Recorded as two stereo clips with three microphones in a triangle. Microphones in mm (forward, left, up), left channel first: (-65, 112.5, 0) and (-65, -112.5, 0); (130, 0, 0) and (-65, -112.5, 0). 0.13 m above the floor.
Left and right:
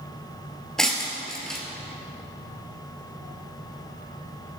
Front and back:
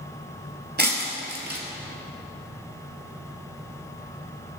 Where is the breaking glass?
Straight behind, 1.7 m.